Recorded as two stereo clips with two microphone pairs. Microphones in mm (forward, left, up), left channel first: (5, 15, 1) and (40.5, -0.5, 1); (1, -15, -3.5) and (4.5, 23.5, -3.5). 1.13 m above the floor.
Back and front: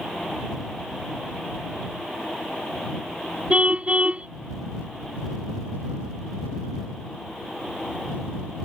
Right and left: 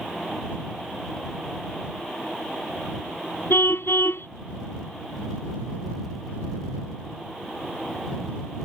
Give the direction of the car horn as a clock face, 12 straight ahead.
3 o'clock.